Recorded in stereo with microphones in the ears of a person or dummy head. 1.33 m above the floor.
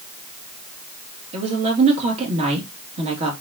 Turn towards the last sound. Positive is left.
turn(degrees=-35)  # may be behind; listen again after turning